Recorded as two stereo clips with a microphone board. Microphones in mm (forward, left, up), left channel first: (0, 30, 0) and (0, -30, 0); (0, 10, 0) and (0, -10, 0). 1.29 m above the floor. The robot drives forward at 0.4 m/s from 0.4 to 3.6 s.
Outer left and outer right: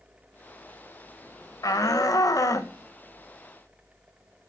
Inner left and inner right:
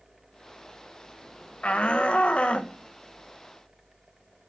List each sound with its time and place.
1.6 s a shout: 75° left (ahead or behind), 1.4 m; by 4.5 s 60° left (ahead or behind), 1.6 m